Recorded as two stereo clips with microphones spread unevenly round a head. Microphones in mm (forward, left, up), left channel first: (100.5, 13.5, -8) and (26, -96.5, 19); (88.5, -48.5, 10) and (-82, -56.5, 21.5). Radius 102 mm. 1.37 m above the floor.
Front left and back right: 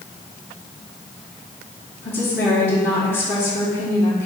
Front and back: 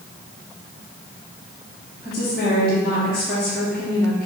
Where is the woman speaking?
90° left, 2 m.